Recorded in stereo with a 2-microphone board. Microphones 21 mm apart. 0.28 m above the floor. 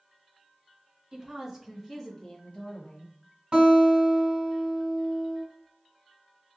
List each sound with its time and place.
1.1 s a woman speaking: 30° right (ahead or behind), 1.1 m; by 3.1 s 50° left (ahead or behind), 1.6 m
3.5 s a guitar: 50° right (ahead or behind), 1.9 m